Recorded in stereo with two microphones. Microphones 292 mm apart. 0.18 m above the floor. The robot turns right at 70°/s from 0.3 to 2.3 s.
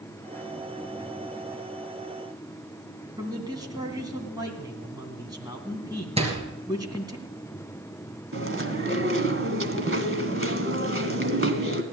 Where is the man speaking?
15° right (ahead or behind), 2.0 m.